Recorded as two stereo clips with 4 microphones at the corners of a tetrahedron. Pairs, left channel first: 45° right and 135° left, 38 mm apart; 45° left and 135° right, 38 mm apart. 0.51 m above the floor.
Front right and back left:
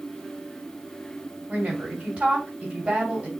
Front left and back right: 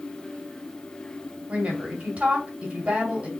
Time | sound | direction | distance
1.5 | a woman speaking | 170° right | 2.5 m